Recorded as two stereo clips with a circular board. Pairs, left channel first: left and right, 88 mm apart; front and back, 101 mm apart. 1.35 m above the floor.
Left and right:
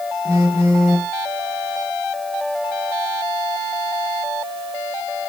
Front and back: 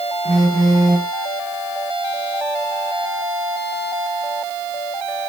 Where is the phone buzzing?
85° right, 1.1 m.